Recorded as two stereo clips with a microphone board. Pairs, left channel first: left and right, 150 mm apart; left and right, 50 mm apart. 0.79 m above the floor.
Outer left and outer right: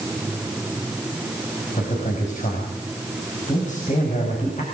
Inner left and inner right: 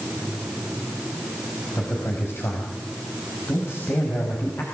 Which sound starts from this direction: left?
A man speaking, at 1.8 s.